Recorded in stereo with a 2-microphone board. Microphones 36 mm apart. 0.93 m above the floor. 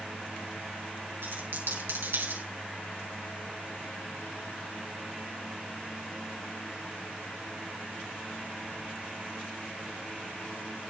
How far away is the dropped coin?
About 4.5 m.